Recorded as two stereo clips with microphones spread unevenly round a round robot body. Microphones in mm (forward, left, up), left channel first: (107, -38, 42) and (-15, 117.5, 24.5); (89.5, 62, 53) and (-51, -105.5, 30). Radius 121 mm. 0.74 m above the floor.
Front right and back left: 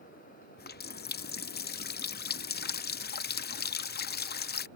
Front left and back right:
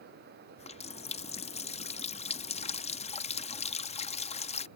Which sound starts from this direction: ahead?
A running tap, at 0.6 s.